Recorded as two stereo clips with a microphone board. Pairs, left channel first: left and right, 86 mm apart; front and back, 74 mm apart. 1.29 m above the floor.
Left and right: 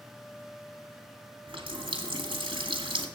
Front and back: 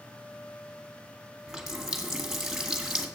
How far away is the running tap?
About 1.8 m.